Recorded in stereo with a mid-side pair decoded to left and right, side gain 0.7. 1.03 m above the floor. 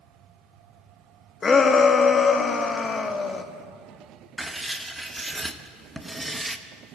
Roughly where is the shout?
Ahead left.